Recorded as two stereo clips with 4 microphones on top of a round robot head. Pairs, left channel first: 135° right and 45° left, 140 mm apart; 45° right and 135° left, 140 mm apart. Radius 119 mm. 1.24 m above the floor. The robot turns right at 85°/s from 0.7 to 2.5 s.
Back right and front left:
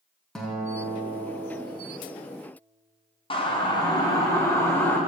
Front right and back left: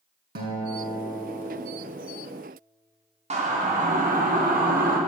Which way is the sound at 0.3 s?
140° left.